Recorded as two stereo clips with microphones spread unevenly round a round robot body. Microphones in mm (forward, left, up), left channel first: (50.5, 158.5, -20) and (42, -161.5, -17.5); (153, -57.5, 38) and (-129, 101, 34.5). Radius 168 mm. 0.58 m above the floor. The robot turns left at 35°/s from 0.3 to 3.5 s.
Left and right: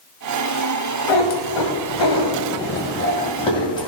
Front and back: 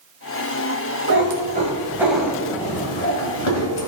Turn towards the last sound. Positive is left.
turn(degrees=15)